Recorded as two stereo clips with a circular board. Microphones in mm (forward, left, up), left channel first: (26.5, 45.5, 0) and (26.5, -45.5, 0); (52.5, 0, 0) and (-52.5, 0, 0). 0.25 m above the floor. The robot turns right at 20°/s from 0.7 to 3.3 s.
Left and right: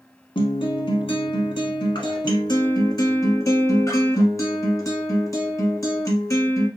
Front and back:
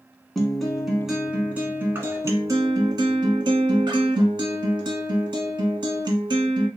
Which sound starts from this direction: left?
A guitar, at 0.3 s.